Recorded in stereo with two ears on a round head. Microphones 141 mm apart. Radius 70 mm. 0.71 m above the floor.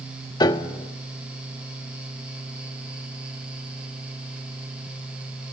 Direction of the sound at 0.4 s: 25° left (ahead or behind).